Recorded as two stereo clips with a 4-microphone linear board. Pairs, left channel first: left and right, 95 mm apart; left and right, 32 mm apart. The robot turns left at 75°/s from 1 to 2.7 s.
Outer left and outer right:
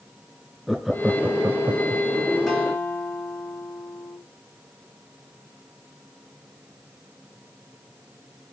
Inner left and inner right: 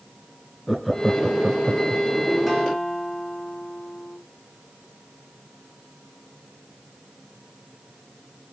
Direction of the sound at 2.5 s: Centre (ahead or behind).